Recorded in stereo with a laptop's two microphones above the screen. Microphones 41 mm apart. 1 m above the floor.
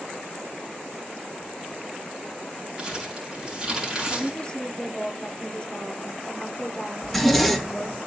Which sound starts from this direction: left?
A woman speaking, at 4.1 s.